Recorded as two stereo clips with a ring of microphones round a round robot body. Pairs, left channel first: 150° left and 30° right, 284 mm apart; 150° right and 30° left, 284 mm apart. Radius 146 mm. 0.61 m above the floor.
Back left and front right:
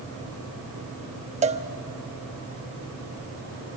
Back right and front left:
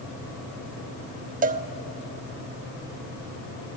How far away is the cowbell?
About 0.9 m.